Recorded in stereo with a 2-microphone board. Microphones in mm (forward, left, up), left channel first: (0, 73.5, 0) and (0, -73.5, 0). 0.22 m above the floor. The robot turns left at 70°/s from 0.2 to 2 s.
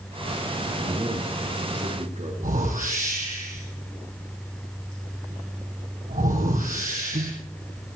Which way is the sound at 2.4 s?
75° right (ahead or behind).